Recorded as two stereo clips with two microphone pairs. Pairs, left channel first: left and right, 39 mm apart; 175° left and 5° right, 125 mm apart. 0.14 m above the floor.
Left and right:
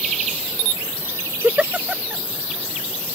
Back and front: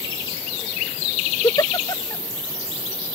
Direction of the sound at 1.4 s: 135° right.